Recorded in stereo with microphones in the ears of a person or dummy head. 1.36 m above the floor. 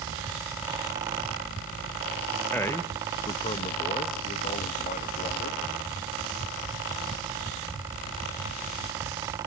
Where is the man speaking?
10° left (ahead or behind), 0.8 m; by 5.6 s 45° left (ahead or behind), 2 m.